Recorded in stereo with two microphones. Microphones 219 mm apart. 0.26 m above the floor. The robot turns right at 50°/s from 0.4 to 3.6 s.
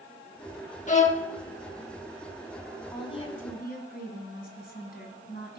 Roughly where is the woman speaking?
Ahead.